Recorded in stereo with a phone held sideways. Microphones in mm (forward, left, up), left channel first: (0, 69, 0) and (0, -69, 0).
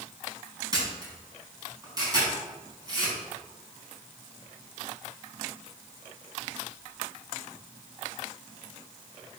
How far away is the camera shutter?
About 4.5 m.